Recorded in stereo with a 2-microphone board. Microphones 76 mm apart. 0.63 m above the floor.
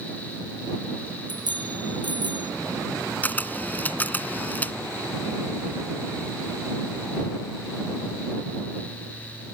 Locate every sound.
1.3 s a bicycle bell: 85° right
3.2 s a camera shutter: 20° left (ahead or behind)